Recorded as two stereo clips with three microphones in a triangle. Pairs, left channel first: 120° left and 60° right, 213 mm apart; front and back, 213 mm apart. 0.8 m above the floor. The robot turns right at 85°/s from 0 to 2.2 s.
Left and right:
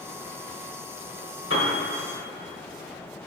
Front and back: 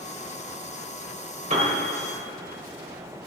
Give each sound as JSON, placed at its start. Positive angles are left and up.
{"t": 1.5, "sound": "a piano", "azimuth_deg": 125, "distance_m": 2.0}